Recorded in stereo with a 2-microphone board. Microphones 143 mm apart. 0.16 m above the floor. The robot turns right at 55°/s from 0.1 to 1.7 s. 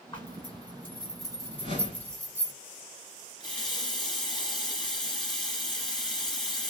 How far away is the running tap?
About 1.4 m.